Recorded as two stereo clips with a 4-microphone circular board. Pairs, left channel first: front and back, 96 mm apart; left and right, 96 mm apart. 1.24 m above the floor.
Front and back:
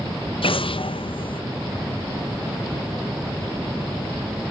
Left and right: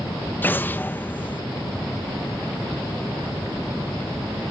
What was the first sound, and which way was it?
An explosion, 20° left.